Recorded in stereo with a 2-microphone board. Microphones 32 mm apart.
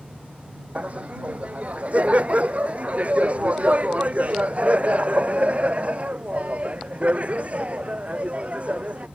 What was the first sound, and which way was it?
Laughter, 45° right (ahead or behind).